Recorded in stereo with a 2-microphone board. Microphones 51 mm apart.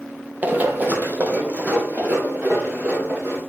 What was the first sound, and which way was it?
Running footsteps, 35° right (ahead or behind).